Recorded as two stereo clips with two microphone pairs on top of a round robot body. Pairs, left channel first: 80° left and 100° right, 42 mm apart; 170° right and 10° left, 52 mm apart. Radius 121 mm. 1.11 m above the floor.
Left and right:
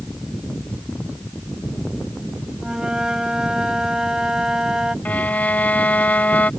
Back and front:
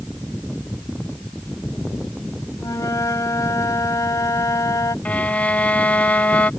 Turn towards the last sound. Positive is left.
turn(degrees=130)